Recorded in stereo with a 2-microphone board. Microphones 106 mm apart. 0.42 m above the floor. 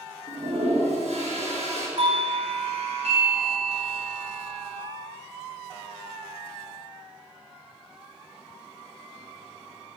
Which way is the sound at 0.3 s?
80° right.